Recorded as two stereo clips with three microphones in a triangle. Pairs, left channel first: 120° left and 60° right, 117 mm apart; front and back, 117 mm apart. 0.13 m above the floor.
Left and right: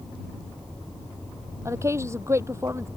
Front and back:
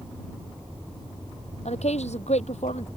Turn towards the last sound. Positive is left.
turn(degrees=5)